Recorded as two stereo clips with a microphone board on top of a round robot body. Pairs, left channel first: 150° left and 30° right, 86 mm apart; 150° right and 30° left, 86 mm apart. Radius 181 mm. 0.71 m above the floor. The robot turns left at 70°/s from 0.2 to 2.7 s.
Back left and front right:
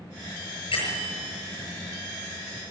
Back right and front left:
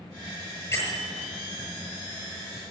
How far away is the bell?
About 7.5 m.